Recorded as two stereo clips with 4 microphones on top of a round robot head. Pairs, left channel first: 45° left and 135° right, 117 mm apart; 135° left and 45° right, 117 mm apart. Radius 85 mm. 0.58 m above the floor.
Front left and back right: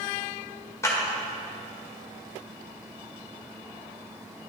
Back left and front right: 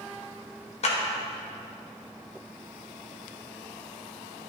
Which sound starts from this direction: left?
A clap, at 0.8 s.